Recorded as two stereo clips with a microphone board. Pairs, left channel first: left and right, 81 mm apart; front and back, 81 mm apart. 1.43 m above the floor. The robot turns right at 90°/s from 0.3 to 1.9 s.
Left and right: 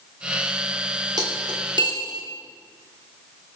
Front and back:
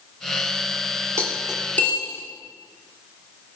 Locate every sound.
1.2 s cutlery clinking: 125° right, 2.5 m; by 2.2 s 60° right, 2.5 m